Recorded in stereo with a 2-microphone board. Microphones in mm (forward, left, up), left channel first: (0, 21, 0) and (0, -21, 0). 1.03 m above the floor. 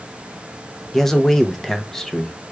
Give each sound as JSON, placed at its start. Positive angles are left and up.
{"t": 0.9, "sound": "a man speaking", "side_deg": 10, "distance_m": 0.6}